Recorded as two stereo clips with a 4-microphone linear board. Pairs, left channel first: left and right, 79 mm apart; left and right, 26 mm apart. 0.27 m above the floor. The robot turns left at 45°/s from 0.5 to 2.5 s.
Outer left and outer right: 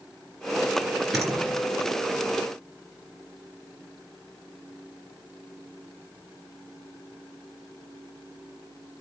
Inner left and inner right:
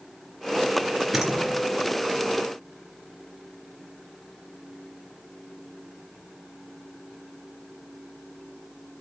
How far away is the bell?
I don't hear a bell.